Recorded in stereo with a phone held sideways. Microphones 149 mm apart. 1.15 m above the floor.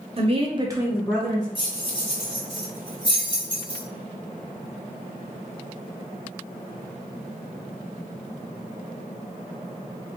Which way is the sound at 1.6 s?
35° left (ahead or behind).